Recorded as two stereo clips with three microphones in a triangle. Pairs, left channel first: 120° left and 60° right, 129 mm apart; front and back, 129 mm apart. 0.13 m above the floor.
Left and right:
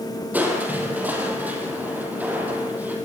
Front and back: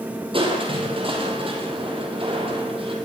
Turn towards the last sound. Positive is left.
turn(degrees=-135)